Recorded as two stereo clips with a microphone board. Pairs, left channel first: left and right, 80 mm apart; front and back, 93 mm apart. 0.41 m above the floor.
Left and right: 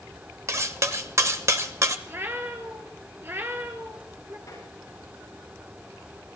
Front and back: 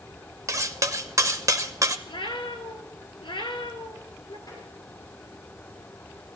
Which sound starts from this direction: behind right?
Cutlery clinking, at 0.5 s.